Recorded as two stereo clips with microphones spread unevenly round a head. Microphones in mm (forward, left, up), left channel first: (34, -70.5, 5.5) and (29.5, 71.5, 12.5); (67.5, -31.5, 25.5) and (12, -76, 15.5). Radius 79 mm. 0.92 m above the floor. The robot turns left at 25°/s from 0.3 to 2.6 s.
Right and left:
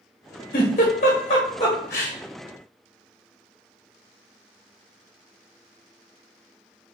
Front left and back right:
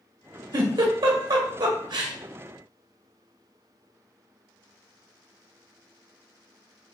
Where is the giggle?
125° right, 1.1 m; by 2.1 s 170° right, 1.1 m.